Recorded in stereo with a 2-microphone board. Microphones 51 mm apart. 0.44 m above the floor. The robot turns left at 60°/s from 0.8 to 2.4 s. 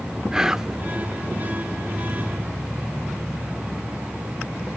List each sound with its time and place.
0.3 s whispering: 15° right (ahead or behind), 0.8 m